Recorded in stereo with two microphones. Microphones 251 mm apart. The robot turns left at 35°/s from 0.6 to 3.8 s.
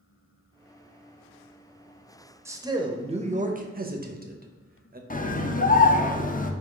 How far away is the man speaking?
About 0.6 m.